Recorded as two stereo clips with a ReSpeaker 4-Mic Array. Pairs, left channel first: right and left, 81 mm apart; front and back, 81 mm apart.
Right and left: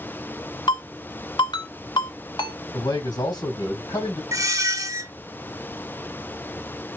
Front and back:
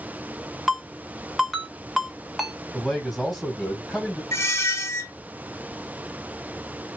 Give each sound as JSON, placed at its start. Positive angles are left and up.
{"t": 0.7, "sound": "a ringtone", "azimuth_deg": -95, "distance_m": 1.4}
{"t": 2.7, "sound": "a man speaking", "azimuth_deg": -90, "distance_m": 2.0}
{"t": 4.3, "sound": "a squeak", "azimuth_deg": 50, "distance_m": 1.1}